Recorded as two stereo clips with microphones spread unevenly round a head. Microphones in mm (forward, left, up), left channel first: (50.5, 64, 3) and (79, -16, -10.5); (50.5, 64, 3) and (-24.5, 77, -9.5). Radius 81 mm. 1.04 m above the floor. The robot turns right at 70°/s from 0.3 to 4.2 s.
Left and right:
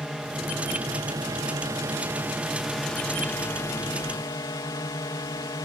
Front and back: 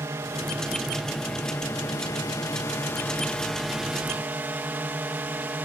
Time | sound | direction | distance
0.0 | a drone | 155° right | ?